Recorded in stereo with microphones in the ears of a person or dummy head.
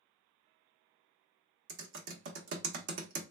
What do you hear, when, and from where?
1.7 s typing on a keyboard: 60° right (ahead or behind), 0.7 m